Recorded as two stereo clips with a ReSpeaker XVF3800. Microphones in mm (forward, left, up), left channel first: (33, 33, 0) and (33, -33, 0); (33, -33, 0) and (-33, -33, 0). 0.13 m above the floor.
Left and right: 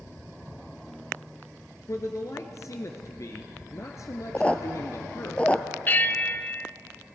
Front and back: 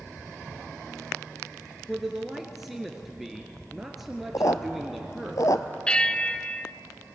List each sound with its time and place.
1.9 s a man speaking: 95° left, 1.8 m
4.3 s a squeak: 20° left, 0.9 m
5.9 s a bell: 60° left, 0.6 m